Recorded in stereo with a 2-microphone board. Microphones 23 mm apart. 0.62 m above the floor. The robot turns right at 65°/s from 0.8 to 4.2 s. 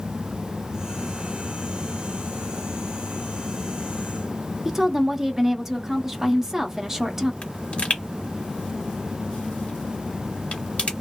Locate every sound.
4.7 s a woman speaking: 20° right (ahead or behind), 0.6 m
7.4 s a pop: 55° left (ahead or behind), 1.1 m